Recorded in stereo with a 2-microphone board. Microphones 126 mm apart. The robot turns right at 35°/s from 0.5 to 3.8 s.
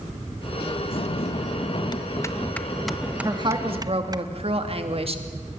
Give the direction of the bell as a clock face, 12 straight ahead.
8 o'clock.